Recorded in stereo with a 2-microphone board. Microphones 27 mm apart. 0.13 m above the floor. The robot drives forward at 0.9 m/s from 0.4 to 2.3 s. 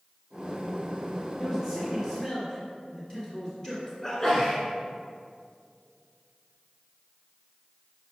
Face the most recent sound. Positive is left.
turn(degrees=20)  # may be behind; listen again after turning